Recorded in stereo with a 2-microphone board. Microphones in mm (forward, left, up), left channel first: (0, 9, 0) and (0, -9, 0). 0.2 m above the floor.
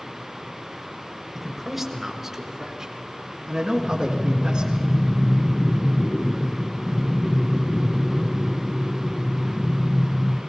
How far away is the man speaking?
About 4 m.